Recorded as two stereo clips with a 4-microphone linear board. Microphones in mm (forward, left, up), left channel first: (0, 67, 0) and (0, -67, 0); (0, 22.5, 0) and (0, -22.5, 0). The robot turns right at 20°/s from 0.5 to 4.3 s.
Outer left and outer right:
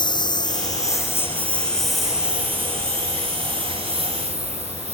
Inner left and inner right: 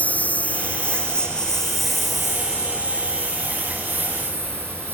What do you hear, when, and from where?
0.0 s a lawn mower: 35° left (ahead or behind); by 5.0 s 50° right (ahead or behind)